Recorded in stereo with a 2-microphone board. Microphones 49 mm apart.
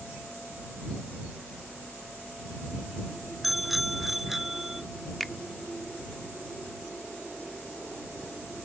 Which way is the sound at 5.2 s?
5° left (ahead or behind).